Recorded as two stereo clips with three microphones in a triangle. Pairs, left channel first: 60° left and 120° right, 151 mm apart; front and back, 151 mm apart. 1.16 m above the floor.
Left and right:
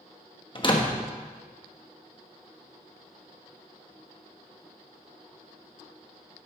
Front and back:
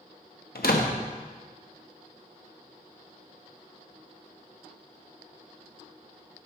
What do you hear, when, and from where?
0.6 s a door slam: straight ahead, 1.2 m